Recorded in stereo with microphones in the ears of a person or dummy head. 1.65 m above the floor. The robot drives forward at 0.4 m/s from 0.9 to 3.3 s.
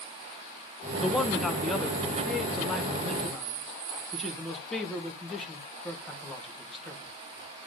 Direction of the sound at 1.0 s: 5° right (ahead or behind).